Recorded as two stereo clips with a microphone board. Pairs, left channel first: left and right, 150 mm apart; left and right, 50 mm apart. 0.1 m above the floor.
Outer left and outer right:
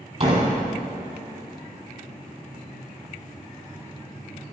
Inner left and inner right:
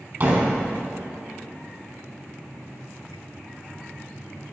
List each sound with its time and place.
0.2 s a door slam: 45° right (ahead or behind), 2.5 m